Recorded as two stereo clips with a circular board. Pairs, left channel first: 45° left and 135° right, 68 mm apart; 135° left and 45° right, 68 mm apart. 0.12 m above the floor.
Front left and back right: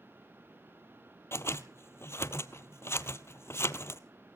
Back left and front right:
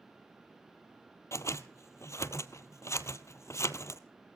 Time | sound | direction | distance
1.3 | scissors | 95° left | 0.7 m